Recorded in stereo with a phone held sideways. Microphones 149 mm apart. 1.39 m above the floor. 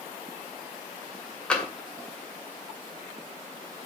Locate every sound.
1.5 s tapping: 5° left (ahead or behind), 2 m